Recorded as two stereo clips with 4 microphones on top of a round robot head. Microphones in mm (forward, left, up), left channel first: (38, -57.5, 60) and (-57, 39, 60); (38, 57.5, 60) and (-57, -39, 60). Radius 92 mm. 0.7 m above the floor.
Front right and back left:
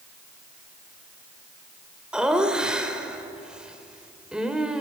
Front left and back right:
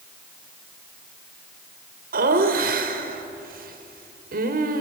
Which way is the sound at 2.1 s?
140° right.